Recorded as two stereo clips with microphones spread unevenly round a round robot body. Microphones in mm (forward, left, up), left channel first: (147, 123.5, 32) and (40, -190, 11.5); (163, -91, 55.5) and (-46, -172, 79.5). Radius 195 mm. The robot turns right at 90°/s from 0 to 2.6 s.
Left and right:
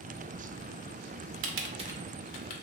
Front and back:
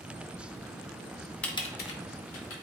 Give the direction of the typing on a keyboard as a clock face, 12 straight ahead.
2 o'clock.